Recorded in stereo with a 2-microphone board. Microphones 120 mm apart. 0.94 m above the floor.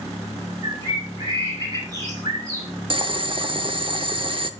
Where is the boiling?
45° right (ahead or behind), 0.7 m.